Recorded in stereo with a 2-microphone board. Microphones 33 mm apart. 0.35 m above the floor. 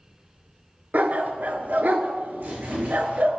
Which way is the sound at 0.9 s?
60° right (ahead or behind).